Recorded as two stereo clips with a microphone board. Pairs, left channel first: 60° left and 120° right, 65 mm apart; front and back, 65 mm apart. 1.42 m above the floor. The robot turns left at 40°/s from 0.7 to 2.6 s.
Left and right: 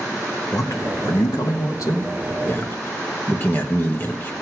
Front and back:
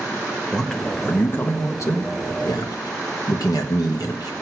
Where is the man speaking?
80° left, 1.5 m; by 4.3 s 5° left, 1.5 m.